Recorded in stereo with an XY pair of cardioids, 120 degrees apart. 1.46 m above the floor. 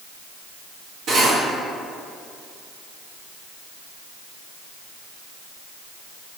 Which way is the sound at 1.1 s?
70° right.